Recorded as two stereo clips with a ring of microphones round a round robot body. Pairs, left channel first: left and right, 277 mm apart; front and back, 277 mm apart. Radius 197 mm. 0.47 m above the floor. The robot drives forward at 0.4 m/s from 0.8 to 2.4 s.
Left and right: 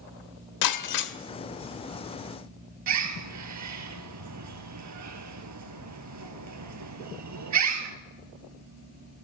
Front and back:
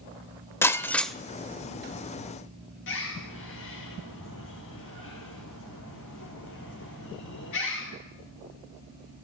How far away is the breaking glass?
About 1.1 m.